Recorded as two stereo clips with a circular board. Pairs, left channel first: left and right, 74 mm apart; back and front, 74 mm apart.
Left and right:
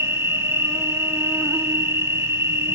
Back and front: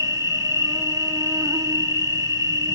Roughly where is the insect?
Ahead right.